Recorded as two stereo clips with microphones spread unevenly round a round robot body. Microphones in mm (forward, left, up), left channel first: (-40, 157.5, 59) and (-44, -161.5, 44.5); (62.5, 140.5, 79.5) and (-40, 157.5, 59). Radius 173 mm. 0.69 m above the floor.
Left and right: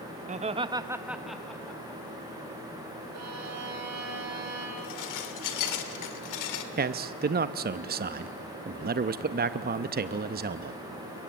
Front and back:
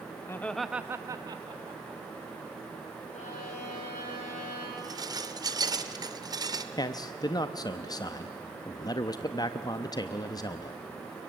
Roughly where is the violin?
Ahead right.